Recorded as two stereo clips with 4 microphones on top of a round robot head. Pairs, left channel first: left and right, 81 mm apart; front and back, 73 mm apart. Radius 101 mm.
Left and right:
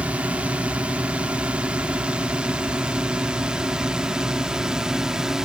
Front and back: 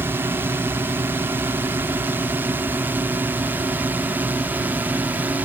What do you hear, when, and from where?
0.0 s a drone: 150° right; by 5.5 s 165° right